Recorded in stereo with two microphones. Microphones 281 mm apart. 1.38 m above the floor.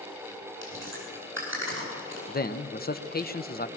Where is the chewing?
45° right (ahead or behind), 8.5 m.